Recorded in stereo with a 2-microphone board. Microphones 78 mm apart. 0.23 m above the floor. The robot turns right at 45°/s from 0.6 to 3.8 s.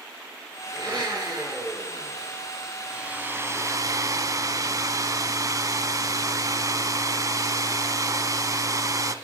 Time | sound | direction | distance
0.7 | a blender | 90° right | 3.5 m
2.9 | a hair dryer | 165° right | 0.5 m